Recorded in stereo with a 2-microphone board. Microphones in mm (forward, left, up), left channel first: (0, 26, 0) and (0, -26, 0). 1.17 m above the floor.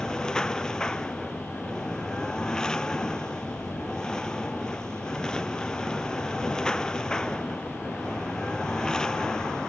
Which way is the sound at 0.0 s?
10° left (ahead or behind).